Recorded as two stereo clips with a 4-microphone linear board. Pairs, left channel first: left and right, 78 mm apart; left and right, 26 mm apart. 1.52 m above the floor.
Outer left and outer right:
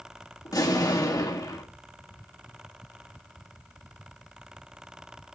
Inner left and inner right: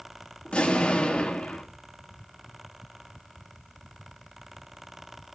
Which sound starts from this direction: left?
An explosion, at 0.5 s.